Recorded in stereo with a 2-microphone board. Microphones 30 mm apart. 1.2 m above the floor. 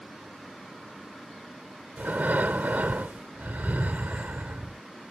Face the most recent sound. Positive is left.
turn(degrees=-75)  # may be behind; listen again after turning